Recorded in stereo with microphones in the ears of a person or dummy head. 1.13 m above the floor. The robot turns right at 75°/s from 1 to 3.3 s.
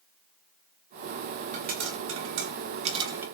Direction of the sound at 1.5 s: 35° right (ahead or behind).